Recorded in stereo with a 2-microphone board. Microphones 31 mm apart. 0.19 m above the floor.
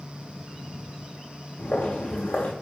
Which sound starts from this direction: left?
Footsteps, at 1.6 s.